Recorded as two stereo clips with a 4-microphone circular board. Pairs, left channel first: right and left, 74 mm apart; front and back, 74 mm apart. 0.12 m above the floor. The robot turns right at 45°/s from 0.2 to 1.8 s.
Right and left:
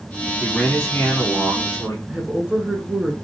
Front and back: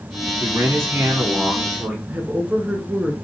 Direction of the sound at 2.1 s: 150° left.